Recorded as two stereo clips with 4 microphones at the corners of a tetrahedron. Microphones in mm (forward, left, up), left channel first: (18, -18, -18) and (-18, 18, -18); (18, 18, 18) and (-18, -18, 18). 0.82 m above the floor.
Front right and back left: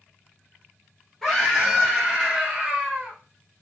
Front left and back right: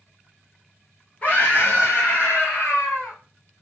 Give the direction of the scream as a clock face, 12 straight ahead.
11 o'clock.